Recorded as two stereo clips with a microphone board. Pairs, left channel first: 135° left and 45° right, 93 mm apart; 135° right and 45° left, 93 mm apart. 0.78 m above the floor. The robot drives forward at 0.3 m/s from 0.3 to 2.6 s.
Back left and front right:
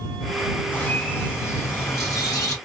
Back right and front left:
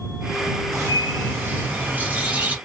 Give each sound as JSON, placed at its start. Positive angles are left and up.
{"t": 0.7, "sound": "a bird", "azimuth_deg": 75, "distance_m": 1.2}